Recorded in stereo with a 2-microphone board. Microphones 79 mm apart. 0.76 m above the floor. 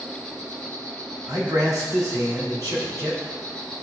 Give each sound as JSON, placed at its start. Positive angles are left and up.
{"t": 0.0, "sound": "an insect", "side_deg": -60, "distance_m": 2.0}
{"t": 1.3, "sound": "a man speaking", "side_deg": -50, "distance_m": 3.0}